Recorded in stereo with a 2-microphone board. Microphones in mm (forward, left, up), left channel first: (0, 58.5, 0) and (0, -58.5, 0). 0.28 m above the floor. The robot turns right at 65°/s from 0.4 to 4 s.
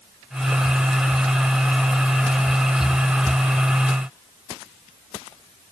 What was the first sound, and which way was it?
Only background noise.